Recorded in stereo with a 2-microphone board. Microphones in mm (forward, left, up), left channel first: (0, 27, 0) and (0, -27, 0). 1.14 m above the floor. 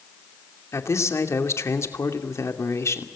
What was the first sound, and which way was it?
A man speaking, 60° left (ahead or behind).